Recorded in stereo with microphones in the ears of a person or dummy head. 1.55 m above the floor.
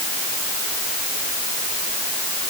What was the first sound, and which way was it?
Only background noise.